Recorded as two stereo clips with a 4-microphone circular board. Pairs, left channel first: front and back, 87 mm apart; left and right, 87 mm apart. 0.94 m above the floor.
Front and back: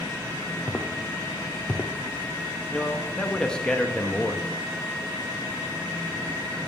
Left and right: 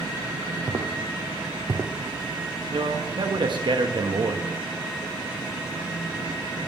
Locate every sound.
0.7 s footsteps: 65° right, 1.4 m; by 1.9 s 75° right, 1.0 m
2.7 s a man speaking: 80° right, 1.1 m